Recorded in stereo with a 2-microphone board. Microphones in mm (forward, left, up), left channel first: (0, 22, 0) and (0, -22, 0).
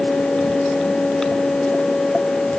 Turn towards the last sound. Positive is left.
No sound to turn to.